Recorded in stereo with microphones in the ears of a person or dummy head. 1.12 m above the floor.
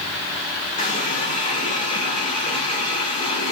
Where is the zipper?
No zipper in this recording.